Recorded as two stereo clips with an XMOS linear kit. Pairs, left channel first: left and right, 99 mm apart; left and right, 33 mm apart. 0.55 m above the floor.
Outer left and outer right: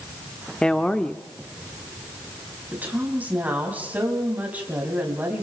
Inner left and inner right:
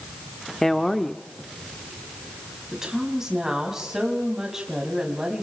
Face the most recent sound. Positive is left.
turn(degrees=-15)  # may be behind; listen again after turning